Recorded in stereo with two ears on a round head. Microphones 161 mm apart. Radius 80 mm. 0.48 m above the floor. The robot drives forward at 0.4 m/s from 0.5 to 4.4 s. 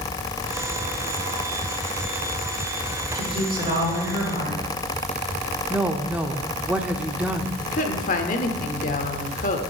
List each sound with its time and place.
3.1 s a woman speaking: 30° right (ahead or behind), 6 m
5.7 s a woman speaking: 10° right (ahead or behind), 0.7 m
7.6 s a woman speaking: 45° left (ahead or behind), 1.2 m